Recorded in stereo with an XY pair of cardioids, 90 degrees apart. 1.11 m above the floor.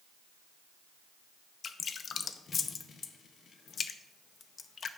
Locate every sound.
1.6 s dripping: 55° left, 0.7 m